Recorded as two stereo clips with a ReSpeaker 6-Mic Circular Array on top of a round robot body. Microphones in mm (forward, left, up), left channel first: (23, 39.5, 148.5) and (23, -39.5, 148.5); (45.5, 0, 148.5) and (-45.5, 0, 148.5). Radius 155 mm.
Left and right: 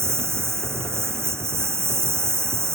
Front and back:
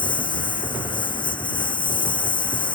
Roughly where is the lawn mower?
Ahead right.